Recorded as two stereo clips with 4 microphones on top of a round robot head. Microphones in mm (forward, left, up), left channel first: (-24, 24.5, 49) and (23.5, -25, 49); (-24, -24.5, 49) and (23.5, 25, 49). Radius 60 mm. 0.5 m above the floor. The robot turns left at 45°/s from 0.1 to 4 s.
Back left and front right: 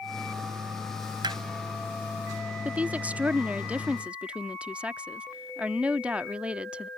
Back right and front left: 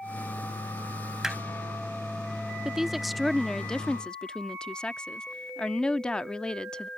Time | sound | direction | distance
1.2 | hammering | 35° right | ?
2.6 | a woman speaking | 20° right | ?